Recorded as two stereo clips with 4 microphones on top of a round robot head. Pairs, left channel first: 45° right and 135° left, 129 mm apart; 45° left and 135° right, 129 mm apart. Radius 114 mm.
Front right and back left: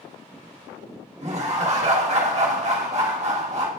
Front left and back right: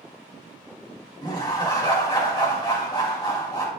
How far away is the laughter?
About 2.0 m.